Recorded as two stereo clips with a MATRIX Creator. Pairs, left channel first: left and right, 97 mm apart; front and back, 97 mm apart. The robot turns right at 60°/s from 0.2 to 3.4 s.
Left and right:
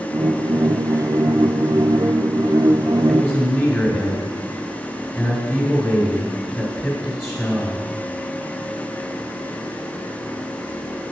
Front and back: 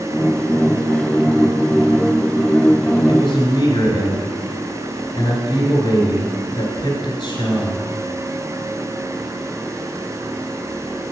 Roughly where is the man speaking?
Ahead.